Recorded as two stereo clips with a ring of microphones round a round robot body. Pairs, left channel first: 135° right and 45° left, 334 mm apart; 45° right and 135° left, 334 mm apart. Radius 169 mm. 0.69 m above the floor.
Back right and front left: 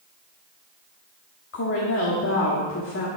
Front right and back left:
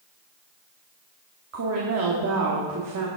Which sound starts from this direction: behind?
A woman speaking, at 1.5 s.